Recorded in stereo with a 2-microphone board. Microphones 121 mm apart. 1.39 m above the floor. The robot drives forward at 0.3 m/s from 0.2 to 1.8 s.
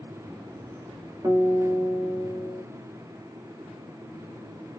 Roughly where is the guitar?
Right.